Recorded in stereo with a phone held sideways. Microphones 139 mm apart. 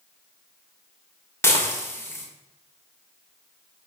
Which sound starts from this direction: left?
Dishes clattering, at 1.4 s.